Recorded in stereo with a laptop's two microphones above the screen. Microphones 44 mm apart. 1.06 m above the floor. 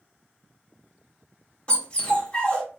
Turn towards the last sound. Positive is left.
turn(degrees=30)  # may be behind; listen again after turning